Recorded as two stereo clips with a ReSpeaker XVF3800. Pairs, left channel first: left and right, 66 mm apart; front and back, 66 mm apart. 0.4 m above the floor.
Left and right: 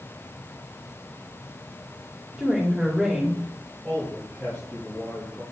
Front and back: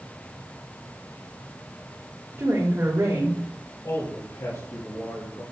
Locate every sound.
2.4 s a woman speaking: 175° right, 1.6 m
3.8 s a man speaking: 20° left, 5 m